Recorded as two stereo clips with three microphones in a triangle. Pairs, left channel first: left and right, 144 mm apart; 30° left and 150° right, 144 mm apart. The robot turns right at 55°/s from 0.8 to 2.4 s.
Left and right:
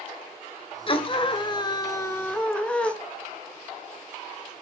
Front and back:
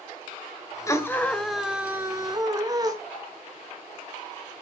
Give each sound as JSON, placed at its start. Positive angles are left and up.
{"t": 0.9, "sound": "a scream", "azimuth_deg": 85, "distance_m": 1.8}